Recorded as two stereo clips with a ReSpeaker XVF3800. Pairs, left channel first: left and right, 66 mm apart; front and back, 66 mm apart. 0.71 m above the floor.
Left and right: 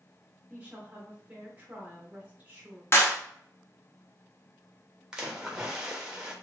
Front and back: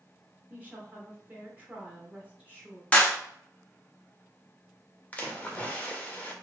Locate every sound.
0.5 s a woman speaking: 135° right, 1.1 m
2.9 s a clap: 65° left, 0.7 m
5.1 s a splash: 25° right, 0.7 m